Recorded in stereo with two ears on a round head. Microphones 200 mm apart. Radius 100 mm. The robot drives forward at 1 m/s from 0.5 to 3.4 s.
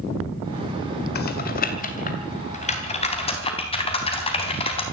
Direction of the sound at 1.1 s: 45° left (ahead or behind).